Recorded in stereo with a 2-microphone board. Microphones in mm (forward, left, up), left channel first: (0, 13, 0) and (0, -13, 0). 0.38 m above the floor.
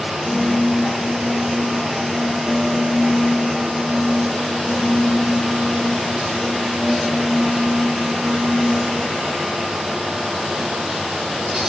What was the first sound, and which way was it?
A piano, 10° right (ahead or behind).